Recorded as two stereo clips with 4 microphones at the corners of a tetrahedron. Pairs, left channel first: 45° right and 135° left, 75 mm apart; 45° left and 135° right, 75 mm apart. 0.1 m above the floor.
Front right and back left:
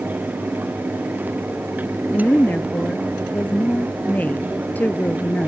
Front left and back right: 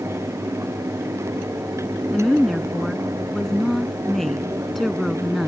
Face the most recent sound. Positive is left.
turn(degrees=-35)